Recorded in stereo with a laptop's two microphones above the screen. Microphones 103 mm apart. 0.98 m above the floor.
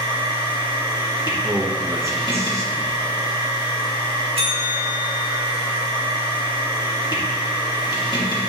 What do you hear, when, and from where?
0.0 s a machine running: 40° left (ahead or behind), 1.7 m
1.4 s a man speaking: 25° right (ahead or behind), 0.9 m
4.4 s a bell: 60° right (ahead or behind), 1.5 m